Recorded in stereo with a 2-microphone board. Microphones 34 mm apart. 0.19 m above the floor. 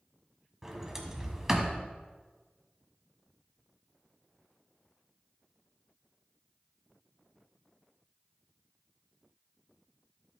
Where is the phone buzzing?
I don't hear a phone buzzing.